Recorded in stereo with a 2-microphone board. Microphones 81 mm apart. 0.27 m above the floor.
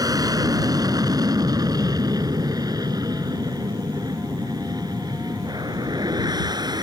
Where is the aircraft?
50° right (ahead or behind); by 6.8 s 55° right (ahead or behind).